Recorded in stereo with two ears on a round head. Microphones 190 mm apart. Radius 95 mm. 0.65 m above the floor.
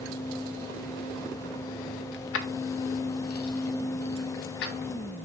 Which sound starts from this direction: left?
Keys jangling, at 2.1 s.